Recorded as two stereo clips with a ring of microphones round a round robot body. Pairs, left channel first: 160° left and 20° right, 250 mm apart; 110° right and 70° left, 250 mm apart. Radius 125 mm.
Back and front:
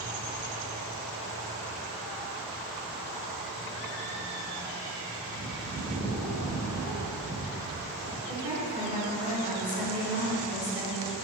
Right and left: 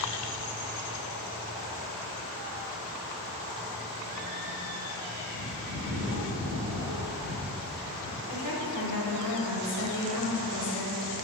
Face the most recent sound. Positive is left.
turn(degrees=-95)